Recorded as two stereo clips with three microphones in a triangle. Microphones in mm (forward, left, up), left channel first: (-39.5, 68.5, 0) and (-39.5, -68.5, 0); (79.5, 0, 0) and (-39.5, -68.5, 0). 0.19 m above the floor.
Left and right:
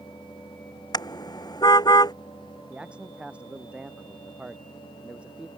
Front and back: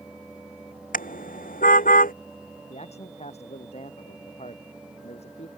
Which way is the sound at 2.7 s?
10° right.